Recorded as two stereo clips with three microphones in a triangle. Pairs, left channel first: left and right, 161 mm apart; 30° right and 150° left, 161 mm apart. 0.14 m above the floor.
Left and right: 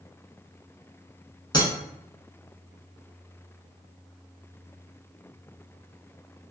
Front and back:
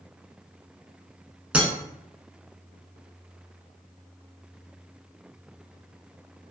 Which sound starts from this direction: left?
Breaking glass, at 1.5 s.